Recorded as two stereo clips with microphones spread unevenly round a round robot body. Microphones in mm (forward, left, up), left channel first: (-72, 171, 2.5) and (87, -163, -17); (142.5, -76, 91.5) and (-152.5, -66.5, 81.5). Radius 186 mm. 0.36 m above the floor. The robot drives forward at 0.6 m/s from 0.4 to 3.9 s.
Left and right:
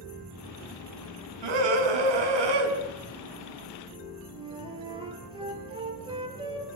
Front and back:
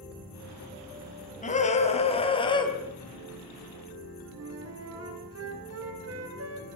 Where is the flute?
140° right, 3.5 m.